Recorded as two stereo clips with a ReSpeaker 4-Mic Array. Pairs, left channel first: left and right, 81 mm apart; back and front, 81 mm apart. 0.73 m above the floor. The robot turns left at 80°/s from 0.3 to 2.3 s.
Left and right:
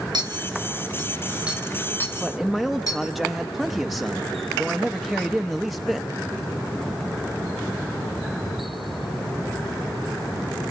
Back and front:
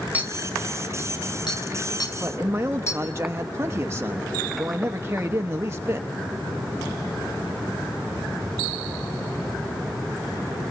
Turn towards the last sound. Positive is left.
turn(degrees=0)